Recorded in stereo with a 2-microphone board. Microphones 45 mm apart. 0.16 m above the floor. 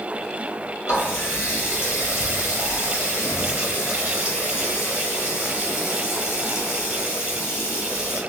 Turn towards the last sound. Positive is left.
turn(degrees=60)  # may be behind; listen again after turning